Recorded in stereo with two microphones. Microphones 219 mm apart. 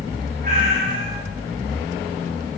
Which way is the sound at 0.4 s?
40° right (ahead or behind).